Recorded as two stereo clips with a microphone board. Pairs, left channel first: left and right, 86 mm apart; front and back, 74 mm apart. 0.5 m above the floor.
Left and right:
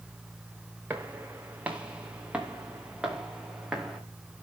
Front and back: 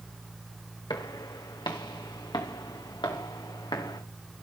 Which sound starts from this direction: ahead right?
Footsteps, at 0.9 s.